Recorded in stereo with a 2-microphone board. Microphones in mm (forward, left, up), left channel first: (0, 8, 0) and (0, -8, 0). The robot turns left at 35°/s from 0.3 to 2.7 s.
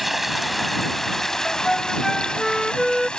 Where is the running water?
175° right; by 3.2 s 105° left.